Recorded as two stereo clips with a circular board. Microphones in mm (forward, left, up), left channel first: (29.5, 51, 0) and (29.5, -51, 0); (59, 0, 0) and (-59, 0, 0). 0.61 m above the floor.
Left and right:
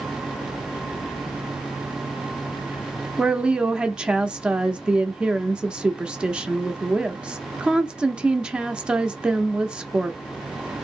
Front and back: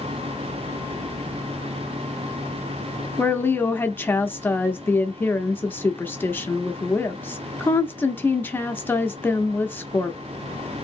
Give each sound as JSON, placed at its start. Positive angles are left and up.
{"t": 3.2, "sound": "a woman speaking", "azimuth_deg": -25, "distance_m": 0.6}